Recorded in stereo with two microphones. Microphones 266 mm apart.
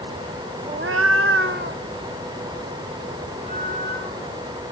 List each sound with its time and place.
0.7 s a cat meowing: 25° right (ahead or behind), 0.5 m; by 4.5 s 30° right (ahead or behind), 5.5 m